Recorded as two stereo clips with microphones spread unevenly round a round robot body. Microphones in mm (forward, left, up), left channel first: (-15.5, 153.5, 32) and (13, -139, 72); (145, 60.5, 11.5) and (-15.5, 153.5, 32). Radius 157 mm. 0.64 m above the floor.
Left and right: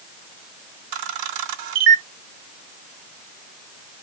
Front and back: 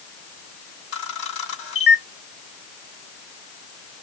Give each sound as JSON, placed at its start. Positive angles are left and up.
{"t": 0.9, "sound": "a camera shutter", "azimuth_deg": -80, "distance_m": 0.7}